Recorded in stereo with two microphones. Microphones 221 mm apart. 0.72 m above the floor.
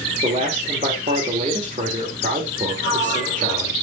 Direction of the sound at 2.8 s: 60° left (ahead or behind).